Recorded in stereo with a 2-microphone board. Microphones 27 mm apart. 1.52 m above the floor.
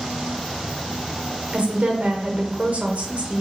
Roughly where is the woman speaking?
Right.